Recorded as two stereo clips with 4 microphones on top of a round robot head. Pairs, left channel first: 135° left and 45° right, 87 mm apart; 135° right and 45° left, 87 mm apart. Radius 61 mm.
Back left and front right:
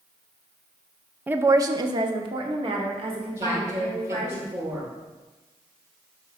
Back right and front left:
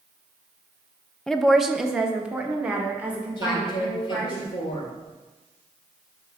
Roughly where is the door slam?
No door slam in this recording.